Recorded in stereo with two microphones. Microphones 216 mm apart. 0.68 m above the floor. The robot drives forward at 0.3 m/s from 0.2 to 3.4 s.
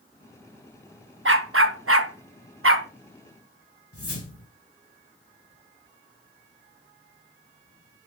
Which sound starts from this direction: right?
A dog barking, at 1.2 s.